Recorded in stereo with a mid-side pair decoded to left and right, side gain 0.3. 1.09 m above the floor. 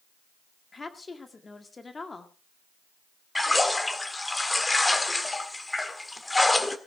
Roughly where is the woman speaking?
Ahead left.